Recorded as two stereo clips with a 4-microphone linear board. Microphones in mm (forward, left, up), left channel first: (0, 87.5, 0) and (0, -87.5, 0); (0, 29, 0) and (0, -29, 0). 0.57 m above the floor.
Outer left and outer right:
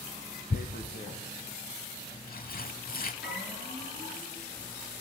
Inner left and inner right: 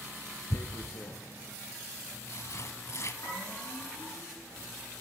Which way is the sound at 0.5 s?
55° left (ahead or behind).